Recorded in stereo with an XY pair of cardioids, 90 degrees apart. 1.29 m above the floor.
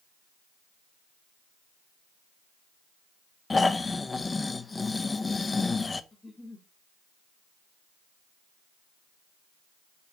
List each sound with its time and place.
3.5 s snoring: 30° left, 0.9 m
6.1 s a giggle: 10° left, 2 m